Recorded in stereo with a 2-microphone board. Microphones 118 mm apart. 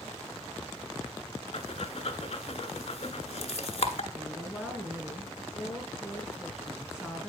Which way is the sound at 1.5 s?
60° left (ahead or behind).